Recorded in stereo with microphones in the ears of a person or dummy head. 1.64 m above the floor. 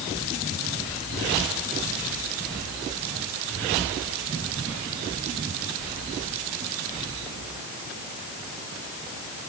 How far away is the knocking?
No knocking in this recording.